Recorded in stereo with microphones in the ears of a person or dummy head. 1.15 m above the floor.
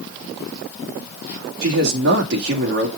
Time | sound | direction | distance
1.6 | a man speaking | 55° right (ahead or behind) | 3 m